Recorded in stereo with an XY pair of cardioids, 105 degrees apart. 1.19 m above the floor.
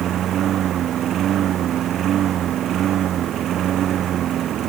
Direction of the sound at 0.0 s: 60° right.